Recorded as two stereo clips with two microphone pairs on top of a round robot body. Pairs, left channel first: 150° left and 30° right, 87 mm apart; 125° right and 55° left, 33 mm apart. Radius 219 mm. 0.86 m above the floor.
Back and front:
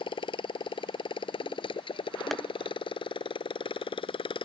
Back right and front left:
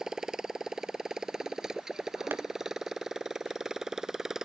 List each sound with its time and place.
0.0 s a motorcycle: 130° left
2.3 s tapping: 60° left